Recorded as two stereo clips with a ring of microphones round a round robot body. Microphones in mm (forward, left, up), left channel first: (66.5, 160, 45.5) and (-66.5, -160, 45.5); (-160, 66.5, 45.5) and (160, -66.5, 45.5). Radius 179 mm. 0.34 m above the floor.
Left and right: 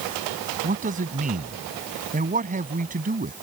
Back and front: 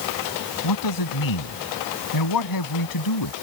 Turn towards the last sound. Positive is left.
turn(degrees=180)